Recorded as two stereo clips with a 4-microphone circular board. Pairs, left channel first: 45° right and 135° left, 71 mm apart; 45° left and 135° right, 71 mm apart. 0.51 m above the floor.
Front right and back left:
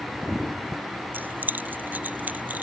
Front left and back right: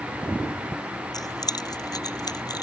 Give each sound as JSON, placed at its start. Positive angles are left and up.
{"t": 1.1, "sound": "keys jangling", "azimuth_deg": 75}